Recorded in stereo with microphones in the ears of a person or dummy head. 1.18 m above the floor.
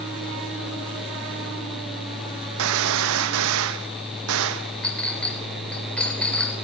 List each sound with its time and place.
2.6 s a gunshot: 70° right (ahead or behind), 0.9 m
4.8 s a clink: 5° left (ahead or behind), 3.5 m